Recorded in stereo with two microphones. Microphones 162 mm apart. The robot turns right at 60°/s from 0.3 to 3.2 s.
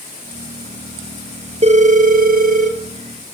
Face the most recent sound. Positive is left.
turn(degrees=-35)